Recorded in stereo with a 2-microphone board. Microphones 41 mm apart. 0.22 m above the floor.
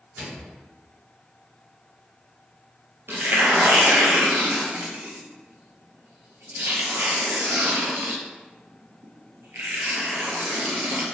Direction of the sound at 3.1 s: 85° right.